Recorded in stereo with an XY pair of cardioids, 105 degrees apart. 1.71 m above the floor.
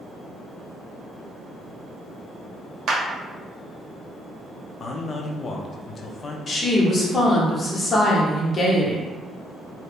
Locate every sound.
2.9 s a clap: 65° right, 0.9 m
4.8 s a man speaking: 45° left, 0.5 m
6.5 s a woman speaking: 35° left, 1.1 m